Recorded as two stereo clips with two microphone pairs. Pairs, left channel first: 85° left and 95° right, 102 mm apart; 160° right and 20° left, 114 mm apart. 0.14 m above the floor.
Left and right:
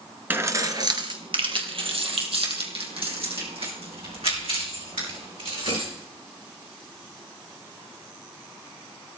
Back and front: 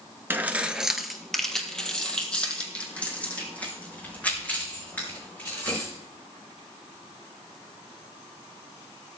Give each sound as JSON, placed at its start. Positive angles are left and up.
{"t": 0.3, "sound": "keys jangling", "azimuth_deg": -40, "distance_m": 0.9}